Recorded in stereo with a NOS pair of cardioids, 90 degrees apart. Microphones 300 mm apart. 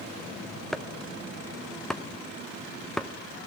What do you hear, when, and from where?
0.7 s chopping: straight ahead, 0.6 m